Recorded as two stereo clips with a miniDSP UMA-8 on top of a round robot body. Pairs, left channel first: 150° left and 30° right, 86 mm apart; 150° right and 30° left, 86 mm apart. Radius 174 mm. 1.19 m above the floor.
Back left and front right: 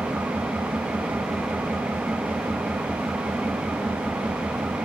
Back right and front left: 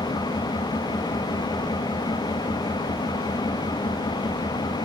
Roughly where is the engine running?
Right.